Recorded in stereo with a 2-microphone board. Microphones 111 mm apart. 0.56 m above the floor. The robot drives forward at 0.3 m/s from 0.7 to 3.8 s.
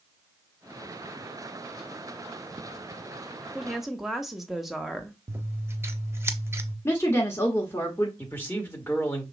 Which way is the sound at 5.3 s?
20° right (ahead or behind).